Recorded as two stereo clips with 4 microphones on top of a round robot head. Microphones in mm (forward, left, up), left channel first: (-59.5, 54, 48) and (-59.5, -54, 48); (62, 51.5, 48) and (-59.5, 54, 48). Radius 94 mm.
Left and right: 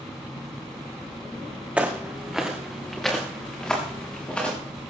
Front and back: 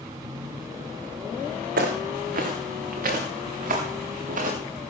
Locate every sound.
1.8 s footsteps: 170° right, 3 m; by 4.6 s 170° left, 5.5 m